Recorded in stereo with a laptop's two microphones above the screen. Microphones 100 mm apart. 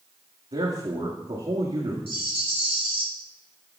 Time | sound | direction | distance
0.5 | a man speaking | 60° right (ahead or behind) | 1.8 m
2.1 | a rattle | 60° left (ahead or behind) | 2.5 m